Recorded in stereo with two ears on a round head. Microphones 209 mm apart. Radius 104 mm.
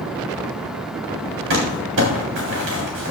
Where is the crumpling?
55° right (ahead or behind), 3.5 m.